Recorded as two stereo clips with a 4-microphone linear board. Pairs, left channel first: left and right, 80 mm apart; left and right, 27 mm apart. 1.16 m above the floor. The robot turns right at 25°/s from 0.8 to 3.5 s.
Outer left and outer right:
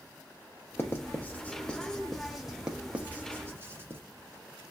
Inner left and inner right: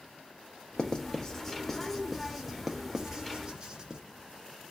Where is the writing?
30° left (ahead or behind), 0.6 m; by 4.0 s 30° right (ahead or behind), 0.6 m.